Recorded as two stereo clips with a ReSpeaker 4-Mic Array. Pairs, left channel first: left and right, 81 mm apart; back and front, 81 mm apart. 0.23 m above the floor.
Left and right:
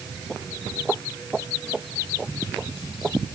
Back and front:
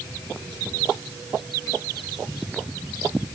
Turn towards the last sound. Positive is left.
No sound to turn to.